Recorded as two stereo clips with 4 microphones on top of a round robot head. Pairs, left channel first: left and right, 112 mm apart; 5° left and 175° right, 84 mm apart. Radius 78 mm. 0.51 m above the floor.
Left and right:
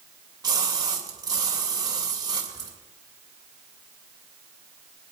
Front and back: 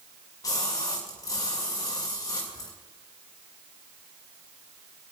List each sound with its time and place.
0.4 s a splash: 40° right, 2.5 m